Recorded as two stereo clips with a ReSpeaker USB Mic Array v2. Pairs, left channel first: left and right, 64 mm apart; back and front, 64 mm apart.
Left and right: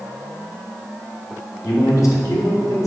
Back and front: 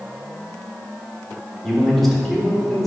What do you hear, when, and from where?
1.6 s a man speaking: 95° left, 1.7 m